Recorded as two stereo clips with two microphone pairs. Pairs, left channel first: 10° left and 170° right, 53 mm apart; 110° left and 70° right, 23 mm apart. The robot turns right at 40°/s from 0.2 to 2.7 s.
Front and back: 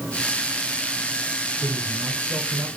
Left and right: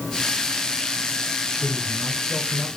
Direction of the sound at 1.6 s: 165° left.